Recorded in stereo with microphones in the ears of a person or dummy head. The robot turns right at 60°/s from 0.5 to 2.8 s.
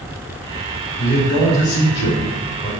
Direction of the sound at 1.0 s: 20° left.